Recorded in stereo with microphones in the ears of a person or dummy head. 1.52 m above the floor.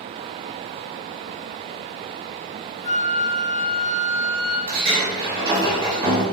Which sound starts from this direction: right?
A sliding door, at 4.7 s.